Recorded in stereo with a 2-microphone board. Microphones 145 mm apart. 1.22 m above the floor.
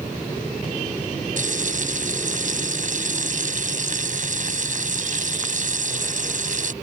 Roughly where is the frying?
Right.